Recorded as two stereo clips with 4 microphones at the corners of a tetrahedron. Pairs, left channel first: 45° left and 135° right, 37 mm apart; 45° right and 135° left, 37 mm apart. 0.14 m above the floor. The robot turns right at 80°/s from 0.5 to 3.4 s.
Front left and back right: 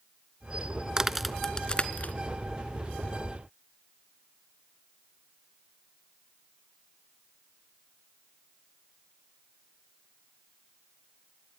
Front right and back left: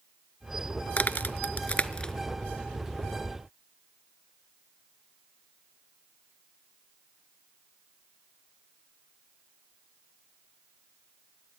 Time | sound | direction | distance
1.0 | a crack | 70° right | 0.5 m